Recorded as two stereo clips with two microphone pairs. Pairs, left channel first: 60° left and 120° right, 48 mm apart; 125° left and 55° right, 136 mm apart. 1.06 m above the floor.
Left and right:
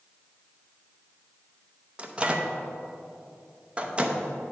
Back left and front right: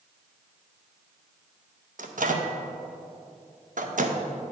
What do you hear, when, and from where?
2.0 s a microwave: 60° right, 0.6 m